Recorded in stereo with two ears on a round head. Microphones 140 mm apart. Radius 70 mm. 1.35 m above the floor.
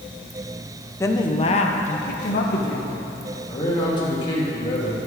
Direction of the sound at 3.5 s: 30° left (ahead or behind).